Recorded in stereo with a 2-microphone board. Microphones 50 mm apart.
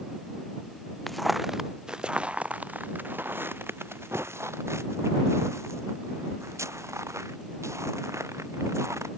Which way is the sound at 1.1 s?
5° left (ahead or behind).